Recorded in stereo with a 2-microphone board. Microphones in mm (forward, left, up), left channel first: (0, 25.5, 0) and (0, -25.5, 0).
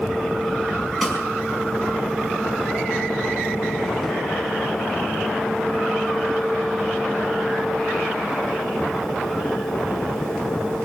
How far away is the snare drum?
About 4.5 m.